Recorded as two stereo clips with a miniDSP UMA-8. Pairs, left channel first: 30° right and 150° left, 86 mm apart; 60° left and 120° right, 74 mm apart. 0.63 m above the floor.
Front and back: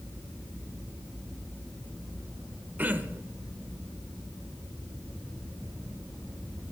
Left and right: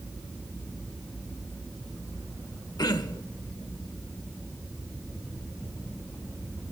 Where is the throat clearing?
80° left, 0.9 m.